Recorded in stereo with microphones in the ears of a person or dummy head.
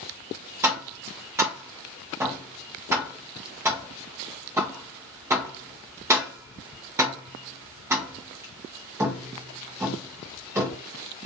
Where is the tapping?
20° right (ahead or behind), 0.5 m.